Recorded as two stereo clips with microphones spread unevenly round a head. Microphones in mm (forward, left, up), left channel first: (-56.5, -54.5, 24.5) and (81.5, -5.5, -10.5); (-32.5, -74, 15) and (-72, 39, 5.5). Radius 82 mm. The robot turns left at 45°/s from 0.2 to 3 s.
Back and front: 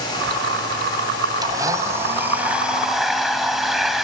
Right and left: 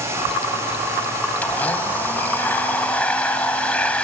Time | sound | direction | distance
1.4 | a blender | 35° right | 1.5 m